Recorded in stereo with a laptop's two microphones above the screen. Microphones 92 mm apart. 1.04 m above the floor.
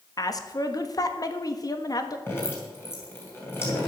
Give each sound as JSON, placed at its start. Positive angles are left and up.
{"t": 0.2, "sound": "a woman speaking", "side_deg": 45, "distance_m": 1.3}
{"t": 2.3, "sound": "dripping", "side_deg": 25, "distance_m": 3.0}